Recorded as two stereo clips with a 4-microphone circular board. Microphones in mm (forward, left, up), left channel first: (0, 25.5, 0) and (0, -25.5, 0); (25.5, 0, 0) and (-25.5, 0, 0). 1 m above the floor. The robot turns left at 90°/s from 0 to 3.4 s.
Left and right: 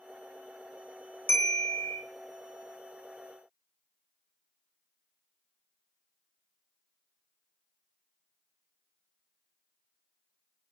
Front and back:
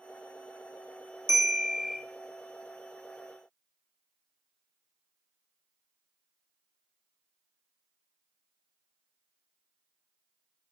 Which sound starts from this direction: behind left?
A bell, at 1.3 s.